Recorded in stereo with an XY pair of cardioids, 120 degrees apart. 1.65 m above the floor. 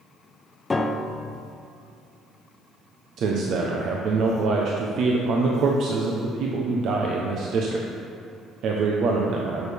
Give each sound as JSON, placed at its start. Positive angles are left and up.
{"t": 0.7, "sound": "a piano", "azimuth_deg": 20, "distance_m": 0.5}
{"t": 3.2, "sound": "a man speaking", "azimuth_deg": -60, "distance_m": 0.9}